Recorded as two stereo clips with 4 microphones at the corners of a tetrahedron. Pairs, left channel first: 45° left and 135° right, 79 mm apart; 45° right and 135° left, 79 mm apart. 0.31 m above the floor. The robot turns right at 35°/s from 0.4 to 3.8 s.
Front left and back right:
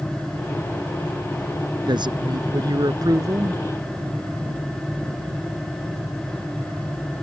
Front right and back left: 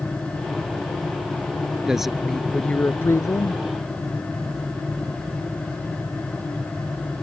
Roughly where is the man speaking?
Behind right.